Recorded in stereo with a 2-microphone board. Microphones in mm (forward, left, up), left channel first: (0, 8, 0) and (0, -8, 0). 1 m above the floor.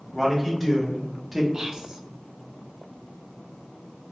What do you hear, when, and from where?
0.1 s a man speaking: 15° left (ahead or behind), 1.5 m; by 1.4 s 5° right (ahead or behind), 0.7 m
1.5 s whispering: 30° right (ahead or behind), 0.5 m